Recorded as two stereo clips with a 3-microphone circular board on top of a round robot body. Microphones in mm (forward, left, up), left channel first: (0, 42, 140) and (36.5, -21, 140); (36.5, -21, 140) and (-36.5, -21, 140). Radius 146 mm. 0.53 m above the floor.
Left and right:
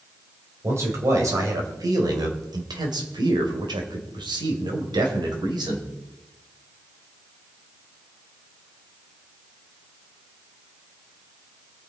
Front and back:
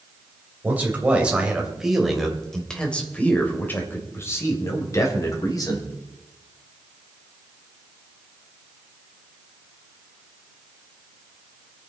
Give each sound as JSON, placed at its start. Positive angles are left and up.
{"t": 0.6, "sound": "a man speaking", "azimuth_deg": -115, "distance_m": 3.0}